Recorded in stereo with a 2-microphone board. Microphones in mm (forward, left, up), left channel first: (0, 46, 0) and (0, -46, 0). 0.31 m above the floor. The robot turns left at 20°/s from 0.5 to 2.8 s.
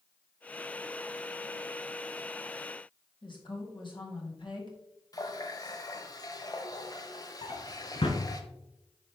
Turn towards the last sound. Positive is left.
turn(degrees=75)  # may be behind; listen again after turning